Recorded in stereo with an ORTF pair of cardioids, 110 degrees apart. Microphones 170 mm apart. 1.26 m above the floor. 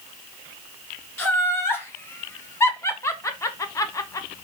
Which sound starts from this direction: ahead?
Laughter, at 1.2 s.